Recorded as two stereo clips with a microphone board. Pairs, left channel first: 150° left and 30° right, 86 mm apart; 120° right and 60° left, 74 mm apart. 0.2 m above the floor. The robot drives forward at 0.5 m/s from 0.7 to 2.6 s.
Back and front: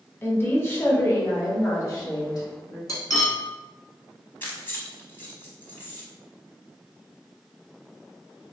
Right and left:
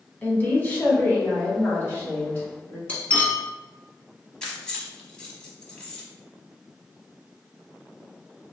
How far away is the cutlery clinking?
About 1.0 m.